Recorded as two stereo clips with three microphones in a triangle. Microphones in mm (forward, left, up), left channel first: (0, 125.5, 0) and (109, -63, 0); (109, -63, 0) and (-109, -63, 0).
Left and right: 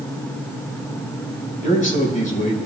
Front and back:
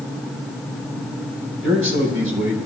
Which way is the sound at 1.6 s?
170° left.